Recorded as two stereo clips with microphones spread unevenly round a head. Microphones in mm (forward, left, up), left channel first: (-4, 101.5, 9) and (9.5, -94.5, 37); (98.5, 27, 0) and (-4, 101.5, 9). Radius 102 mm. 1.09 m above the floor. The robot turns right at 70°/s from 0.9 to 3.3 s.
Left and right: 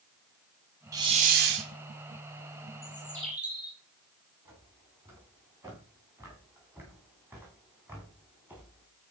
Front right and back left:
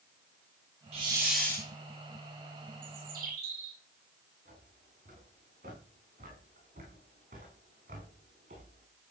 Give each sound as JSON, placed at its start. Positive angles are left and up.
{"t": 0.9, "sound": "a hiss", "azimuth_deg": -160, "distance_m": 2.5}
{"t": 2.8, "sound": "a bird", "azimuth_deg": 155, "distance_m": 4.0}
{"t": 4.5, "sound": "footsteps", "azimuth_deg": -160, "distance_m": 7.0}